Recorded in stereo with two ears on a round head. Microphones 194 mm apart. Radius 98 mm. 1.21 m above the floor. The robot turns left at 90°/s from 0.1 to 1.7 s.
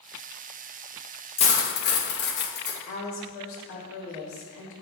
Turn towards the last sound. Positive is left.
turn(degrees=70)  # may be behind; listen again after turning